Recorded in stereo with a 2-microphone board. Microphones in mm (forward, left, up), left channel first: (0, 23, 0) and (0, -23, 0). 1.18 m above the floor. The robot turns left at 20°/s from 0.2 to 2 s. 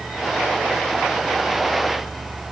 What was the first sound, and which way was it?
Only background noise.